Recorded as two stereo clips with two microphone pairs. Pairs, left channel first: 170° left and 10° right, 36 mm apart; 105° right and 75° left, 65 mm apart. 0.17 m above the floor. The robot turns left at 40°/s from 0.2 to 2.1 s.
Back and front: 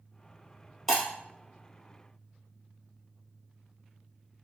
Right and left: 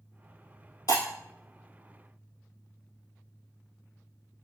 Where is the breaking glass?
105° right, 1.6 m; by 1.0 s 115° right, 1.6 m.